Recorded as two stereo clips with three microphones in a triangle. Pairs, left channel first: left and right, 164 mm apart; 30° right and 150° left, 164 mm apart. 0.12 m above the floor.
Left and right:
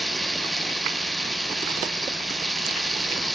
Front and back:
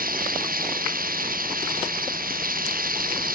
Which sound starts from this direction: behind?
Running water, at 0.0 s.